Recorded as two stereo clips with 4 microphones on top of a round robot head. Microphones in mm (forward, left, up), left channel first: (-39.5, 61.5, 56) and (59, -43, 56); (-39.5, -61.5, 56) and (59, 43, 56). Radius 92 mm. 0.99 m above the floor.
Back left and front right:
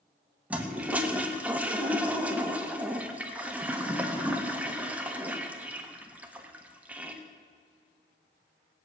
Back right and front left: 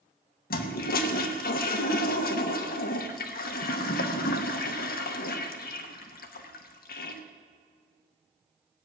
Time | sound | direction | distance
0.5 | a toilet flushing | 125° right | 1.1 m